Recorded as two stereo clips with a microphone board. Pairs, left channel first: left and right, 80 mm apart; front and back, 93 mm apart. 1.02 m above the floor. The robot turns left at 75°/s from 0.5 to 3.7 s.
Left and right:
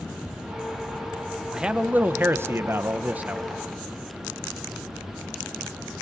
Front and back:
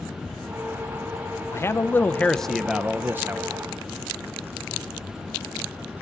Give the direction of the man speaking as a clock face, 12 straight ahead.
12 o'clock.